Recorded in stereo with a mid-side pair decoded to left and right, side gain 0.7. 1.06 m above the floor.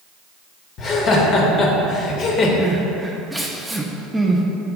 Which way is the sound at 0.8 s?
40° left.